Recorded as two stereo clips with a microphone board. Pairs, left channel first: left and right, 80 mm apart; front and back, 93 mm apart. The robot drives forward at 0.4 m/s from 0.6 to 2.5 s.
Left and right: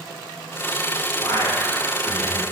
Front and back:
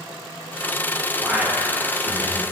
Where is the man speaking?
100° left, 1.4 m; by 2.4 s 120° left, 1.5 m.